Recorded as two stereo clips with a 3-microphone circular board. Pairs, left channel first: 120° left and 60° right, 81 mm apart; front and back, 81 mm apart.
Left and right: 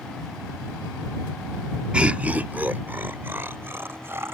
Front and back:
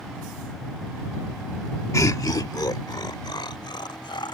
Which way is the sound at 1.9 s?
10° left.